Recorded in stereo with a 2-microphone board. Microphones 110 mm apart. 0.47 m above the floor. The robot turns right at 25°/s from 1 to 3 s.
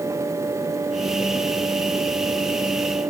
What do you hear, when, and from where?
Only background noise.